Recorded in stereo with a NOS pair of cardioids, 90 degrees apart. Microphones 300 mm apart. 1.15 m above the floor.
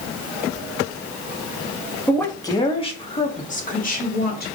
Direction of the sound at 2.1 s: 5° left.